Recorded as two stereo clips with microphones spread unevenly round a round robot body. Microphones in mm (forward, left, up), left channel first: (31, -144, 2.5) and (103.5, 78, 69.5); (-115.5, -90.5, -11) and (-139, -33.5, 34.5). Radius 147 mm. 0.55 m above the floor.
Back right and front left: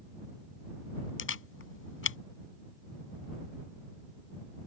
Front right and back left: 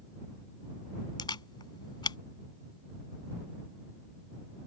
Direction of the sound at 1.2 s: 70° right.